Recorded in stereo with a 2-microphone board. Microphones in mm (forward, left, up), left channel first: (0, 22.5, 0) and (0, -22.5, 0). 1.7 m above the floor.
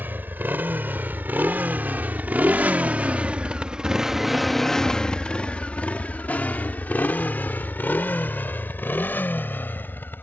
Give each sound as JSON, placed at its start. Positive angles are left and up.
{"t": 0.0, "sound": "a motorcycle", "side_deg": -55}